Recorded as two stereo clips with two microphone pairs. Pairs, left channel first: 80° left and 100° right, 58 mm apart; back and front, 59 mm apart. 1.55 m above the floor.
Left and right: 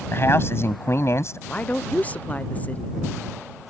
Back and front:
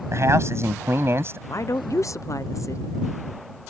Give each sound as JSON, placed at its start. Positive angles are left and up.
{"t": 0.1, "sound": "a man speaking", "azimuth_deg": 35}
{"t": 1.5, "sound": "a woman speaking", "azimuth_deg": 140}